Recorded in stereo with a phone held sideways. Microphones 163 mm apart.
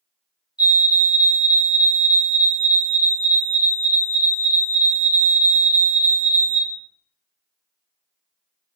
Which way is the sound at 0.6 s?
25° left (ahead or behind).